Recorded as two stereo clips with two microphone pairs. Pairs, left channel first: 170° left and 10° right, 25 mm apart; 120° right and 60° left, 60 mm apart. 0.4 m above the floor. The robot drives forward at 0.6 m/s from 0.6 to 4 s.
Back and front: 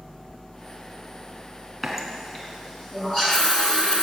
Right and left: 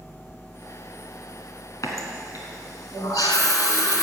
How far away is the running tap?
About 2.5 m.